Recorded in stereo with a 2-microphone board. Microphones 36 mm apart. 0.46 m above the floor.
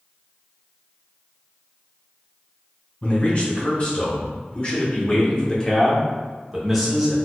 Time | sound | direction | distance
3.0 | a man speaking | 40° left (ahead or behind) | 1.7 m